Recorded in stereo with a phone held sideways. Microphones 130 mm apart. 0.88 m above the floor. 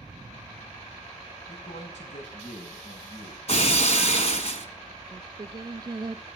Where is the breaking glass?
55° left (ahead or behind), 1.5 m.